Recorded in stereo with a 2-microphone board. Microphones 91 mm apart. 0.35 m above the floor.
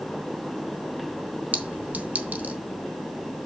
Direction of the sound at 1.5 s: 20° right (ahead or behind).